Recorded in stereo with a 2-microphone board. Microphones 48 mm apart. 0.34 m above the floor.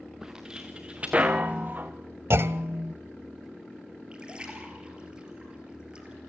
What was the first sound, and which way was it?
Footsteps, 10° right (ahead or behind).